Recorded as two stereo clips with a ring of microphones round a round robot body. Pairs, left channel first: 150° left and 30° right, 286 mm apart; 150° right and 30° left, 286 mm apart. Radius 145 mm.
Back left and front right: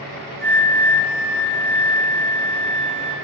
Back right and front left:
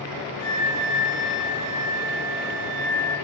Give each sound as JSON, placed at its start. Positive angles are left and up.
{"t": 0.4, "sound": "a flute", "azimuth_deg": -160, "distance_m": 1.0}